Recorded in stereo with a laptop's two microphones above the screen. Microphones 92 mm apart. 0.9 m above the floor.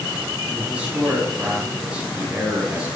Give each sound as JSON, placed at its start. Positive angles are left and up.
{"t": 0.5, "sound": "a man speaking", "side_deg": -15, "distance_m": 5.5}